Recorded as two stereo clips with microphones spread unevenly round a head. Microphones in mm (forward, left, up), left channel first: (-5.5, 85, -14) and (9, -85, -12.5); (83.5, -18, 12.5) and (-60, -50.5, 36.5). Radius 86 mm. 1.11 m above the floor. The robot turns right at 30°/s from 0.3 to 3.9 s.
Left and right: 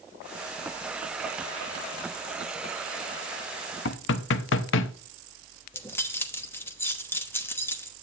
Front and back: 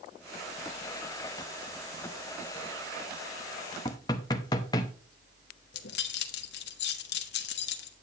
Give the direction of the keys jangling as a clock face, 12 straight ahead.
11 o'clock.